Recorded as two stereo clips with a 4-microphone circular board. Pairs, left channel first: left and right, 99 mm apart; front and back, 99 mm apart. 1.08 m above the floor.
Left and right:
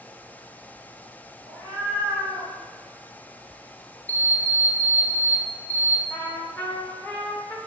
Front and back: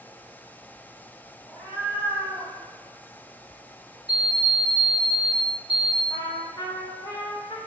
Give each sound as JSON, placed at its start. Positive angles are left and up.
{"t": 1.5, "sound": "a cat meowing", "azimuth_deg": 145, "distance_m": 1.8}
{"t": 4.1, "sound": "an alarm clock", "azimuth_deg": 165, "distance_m": 0.7}
{"t": 6.1, "sound": "a trumpet", "azimuth_deg": 25, "distance_m": 0.6}